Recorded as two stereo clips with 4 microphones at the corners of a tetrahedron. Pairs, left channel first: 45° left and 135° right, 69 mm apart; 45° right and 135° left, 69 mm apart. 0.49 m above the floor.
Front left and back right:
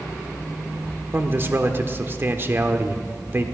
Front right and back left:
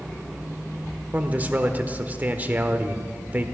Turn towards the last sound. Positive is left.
turn(degrees=-170)